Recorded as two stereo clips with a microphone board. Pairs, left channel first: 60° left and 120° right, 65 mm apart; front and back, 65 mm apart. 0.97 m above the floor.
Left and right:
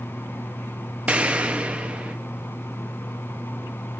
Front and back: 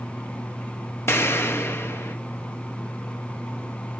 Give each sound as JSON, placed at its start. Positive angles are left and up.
{"t": 1.1, "sound": "an explosion", "azimuth_deg": -50, "distance_m": 0.7}